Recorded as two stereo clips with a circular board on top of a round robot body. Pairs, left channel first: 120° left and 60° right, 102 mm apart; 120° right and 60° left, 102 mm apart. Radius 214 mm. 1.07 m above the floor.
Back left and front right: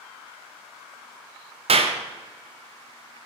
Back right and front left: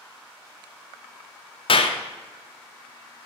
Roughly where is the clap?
Right.